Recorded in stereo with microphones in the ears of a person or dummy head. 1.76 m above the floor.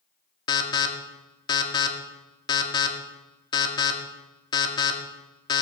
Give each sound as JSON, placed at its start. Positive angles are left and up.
{"t": 0.5, "sound": "an alarm", "side_deg": 20, "distance_m": 1.5}